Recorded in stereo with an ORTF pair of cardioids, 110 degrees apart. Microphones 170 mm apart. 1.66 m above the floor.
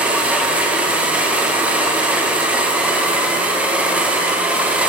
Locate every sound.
0.0 s a machine running: 10° right, 1.4 m